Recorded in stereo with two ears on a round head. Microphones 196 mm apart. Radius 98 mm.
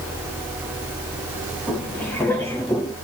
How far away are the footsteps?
About 2.5 m.